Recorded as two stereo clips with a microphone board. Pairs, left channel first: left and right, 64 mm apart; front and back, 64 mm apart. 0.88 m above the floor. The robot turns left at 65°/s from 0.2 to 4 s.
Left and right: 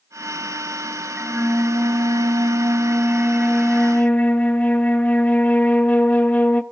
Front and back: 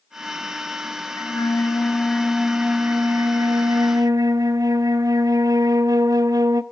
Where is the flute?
20° right, 0.8 m; by 6.6 s 155° left, 0.8 m.